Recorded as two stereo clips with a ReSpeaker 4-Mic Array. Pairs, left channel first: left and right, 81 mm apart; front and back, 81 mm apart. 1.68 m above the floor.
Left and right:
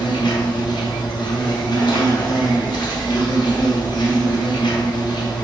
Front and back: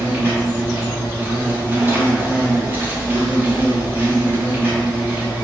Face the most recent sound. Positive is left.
turn(degrees=115)